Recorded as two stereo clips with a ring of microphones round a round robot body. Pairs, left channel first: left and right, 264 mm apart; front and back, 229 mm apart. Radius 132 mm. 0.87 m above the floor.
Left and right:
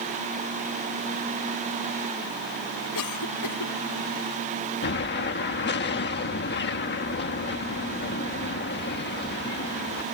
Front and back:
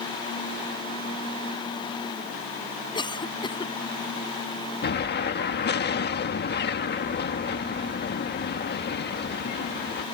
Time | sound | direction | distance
3.0 | a cough | 70° left | ?
4.8 | an explosion | 40° left | ?